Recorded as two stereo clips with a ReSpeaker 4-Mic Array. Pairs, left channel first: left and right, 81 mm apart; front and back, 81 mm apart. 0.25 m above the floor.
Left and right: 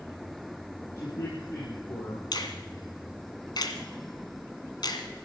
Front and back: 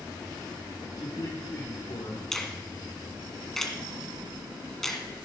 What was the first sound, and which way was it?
A man speaking, 45° left.